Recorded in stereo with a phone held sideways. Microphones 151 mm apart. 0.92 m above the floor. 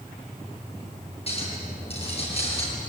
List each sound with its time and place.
1.3 s a clink: 40° left (ahead or behind), 8.5 m